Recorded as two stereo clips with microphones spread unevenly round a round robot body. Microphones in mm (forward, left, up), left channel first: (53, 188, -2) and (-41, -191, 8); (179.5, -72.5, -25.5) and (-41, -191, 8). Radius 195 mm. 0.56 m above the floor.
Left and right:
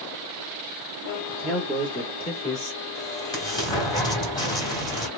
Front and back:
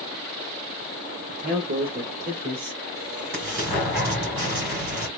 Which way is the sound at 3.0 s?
155° left.